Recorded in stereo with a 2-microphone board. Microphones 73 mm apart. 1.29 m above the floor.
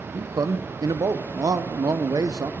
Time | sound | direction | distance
0.1 | a man speaking | 55° right (ahead or behind) | 0.6 m